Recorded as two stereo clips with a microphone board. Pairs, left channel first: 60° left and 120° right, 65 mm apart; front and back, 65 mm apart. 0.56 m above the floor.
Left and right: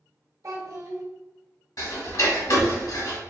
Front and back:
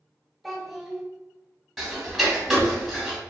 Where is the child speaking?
90° right, 0.6 m.